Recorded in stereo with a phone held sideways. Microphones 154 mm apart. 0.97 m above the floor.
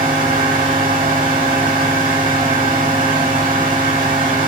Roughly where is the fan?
Right.